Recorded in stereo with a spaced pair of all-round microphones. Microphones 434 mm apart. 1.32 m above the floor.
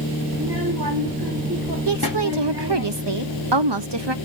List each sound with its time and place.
0.3 s a child speaking: 55° right (ahead or behind), 1.8 m
1.9 s a woman speaking: 70° right (ahead or behind), 0.6 m